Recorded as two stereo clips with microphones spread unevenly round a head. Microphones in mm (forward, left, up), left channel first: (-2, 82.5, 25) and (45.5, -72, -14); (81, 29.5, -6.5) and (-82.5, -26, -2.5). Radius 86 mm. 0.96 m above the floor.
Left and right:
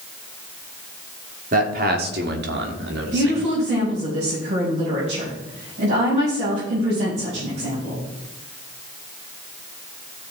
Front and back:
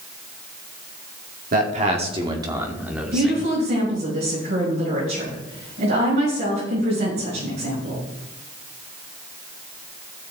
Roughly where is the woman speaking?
Behind right.